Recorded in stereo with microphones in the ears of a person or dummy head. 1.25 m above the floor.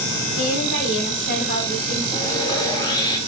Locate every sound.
0.4 s a woman speaking: 60° left (ahead or behind), 5 m
2.1 s sawing: 25° left (ahead or behind), 1.8 m